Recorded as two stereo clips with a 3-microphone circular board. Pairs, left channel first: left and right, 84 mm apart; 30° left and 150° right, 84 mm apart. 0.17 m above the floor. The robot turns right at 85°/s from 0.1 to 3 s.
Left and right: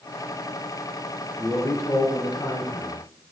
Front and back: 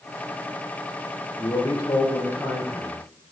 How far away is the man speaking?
About 2.5 m.